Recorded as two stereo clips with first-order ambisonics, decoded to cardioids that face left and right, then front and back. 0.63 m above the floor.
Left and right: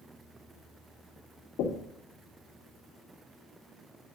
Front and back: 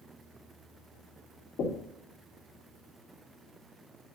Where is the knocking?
50° left, 0.8 m.